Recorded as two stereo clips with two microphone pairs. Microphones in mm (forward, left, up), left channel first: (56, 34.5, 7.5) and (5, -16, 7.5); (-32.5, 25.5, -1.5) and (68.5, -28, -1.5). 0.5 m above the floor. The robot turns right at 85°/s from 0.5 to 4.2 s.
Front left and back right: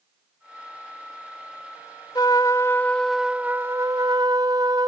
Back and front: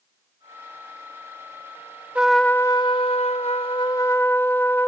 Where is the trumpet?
50° left; by 4.9 s 135° right.